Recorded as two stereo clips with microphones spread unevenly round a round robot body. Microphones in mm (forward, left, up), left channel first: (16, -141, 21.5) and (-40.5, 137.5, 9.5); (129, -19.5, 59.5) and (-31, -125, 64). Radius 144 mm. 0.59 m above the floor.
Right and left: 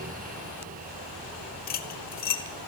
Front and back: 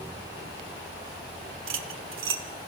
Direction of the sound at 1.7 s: 140° right.